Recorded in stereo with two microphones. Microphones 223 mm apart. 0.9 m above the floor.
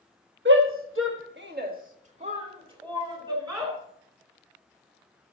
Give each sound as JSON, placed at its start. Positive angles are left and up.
{"t": 0.5, "sound": "a shout", "side_deg": -55, "distance_m": 1.3}